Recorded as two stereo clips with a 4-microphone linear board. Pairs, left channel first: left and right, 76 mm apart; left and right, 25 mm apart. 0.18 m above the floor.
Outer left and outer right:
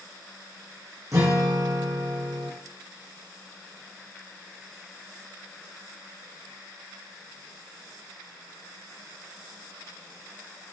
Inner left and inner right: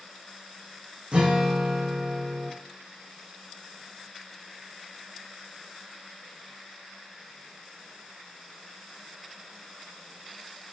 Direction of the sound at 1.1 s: 45° right (ahead or behind).